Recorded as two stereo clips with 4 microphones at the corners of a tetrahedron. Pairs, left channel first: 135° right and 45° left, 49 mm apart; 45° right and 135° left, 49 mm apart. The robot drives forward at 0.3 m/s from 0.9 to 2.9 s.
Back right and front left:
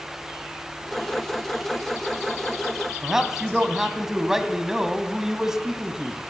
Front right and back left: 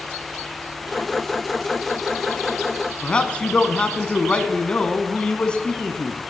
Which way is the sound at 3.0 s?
25° right.